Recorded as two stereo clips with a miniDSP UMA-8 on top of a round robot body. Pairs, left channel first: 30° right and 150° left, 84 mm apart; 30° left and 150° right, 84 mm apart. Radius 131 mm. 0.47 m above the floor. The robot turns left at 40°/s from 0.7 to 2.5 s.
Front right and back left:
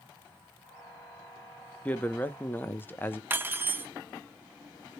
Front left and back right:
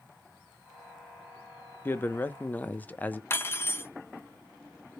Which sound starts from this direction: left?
Cutlery clinking, at 3.3 s.